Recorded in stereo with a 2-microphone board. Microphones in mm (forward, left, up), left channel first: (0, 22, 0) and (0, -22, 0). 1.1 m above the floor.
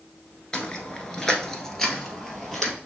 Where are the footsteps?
20° left (ahead or behind), 1.1 m; by 2.7 s 5° left (ahead or behind), 1.8 m.